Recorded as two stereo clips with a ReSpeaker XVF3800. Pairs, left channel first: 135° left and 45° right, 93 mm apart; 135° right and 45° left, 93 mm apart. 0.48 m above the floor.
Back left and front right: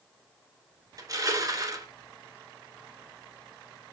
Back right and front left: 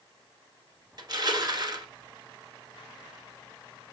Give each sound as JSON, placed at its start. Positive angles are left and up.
{"t": 1.0, "sound": "crushing", "azimuth_deg": 5, "distance_m": 1.0}